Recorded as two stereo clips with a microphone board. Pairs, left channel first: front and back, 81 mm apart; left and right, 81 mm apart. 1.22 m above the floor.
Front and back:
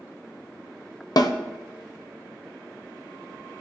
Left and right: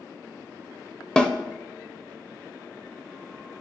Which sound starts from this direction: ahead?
A snare drum, at 1.2 s.